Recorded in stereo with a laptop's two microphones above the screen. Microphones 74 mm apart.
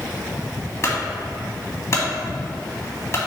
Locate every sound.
0.8 s a clunk: 40° left (ahead or behind), 2.5 m